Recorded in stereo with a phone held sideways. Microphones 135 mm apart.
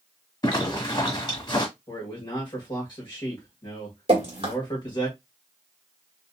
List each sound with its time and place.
0.4 s a zipper: 30° left (ahead or behind), 1.8 m
1.9 s a man speaking: 35° left (ahead or behind), 1.4 m
4.1 s dripping: 45° right (ahead or behind), 1.7 m